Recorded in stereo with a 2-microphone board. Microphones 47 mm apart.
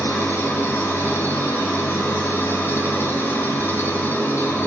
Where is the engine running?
50° left (ahead or behind), 2.5 m.